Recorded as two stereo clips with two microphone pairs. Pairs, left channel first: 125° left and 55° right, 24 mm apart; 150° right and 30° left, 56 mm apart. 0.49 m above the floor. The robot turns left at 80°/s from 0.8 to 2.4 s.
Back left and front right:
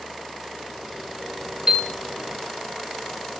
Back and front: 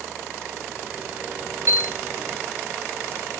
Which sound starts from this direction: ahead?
A piano, at 1.7 s.